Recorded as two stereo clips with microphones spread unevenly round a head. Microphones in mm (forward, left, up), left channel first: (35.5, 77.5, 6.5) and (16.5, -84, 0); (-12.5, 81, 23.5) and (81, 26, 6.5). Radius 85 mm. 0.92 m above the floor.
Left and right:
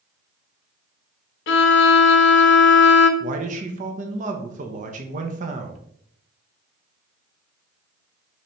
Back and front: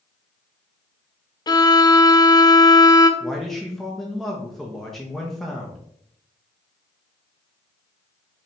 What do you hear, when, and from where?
1.5 s a violin: 90° left, 0.6 m
3.2 s a man speaking: 115° right, 0.6 m